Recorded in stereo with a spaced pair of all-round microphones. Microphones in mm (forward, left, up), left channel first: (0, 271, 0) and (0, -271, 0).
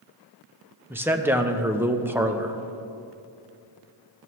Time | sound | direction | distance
0.9 | a man speaking | 5° right (ahead or behind) | 0.5 m